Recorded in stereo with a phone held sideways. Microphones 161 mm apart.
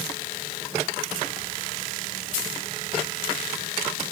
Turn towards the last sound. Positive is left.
No sound to turn to.